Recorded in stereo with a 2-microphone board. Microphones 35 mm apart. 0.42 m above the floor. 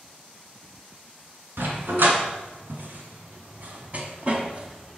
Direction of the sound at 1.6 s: 75° right (ahead or behind).